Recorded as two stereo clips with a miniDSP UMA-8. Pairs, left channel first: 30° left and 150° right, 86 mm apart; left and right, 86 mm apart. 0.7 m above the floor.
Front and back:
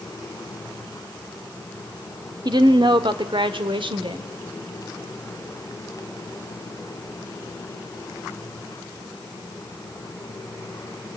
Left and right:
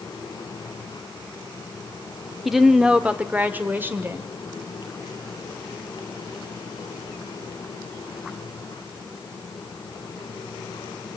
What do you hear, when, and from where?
2.5 s a woman speaking: straight behind, 1.4 m; by 4.3 s 150° right, 2.5 m